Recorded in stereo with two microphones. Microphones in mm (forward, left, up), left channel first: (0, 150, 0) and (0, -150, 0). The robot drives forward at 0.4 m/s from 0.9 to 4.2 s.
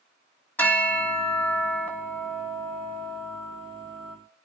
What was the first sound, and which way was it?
A bell, 5° left (ahead or behind).